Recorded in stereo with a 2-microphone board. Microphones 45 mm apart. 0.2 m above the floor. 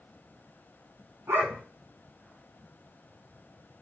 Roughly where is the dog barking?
Right.